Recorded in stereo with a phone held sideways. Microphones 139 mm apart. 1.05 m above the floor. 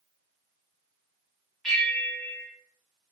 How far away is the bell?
About 1.4 m.